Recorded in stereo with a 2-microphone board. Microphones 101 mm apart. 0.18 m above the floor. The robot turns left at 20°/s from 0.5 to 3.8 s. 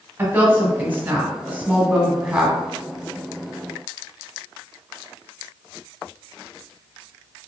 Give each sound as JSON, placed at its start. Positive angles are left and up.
{"t": 0.2, "sound": "a woman speaking", "side_deg": -20, "distance_m": 1.0}